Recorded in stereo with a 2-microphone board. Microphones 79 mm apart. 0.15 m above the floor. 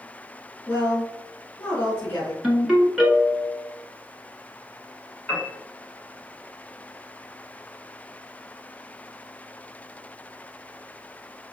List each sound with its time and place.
0.7 s a woman speaking: 35° left (ahead or behind), 1.4 m
2.4 s a ringtone: 10° right (ahead or behind), 1.0 m
5.3 s a piano: 15° left (ahead or behind), 1.4 m